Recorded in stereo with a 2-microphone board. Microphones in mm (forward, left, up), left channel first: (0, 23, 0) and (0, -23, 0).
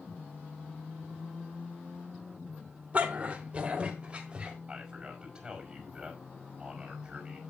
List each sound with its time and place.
2.9 s a dog barking: 30° right (ahead or behind), 1.3 m; by 4.6 s 20° right (ahead or behind), 2 m
4.7 s a man speaking: 15° right (ahead or behind), 5 m